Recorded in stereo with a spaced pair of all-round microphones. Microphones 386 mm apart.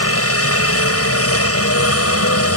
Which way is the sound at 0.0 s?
35° left (ahead or behind).